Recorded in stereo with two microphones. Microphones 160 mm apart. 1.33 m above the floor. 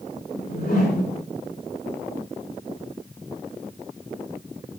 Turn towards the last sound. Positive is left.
turn(degrees=85)